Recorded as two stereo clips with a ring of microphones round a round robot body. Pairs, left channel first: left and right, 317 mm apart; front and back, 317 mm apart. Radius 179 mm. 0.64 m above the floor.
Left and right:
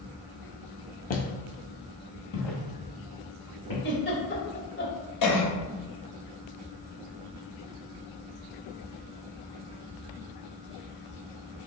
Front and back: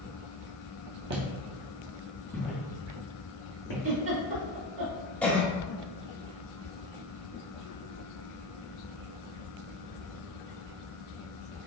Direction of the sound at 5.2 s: 85° left.